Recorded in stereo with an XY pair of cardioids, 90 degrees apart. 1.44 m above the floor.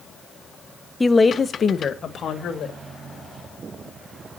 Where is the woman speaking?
10° left, 0.9 m; by 2.8 s 60° left, 2 m.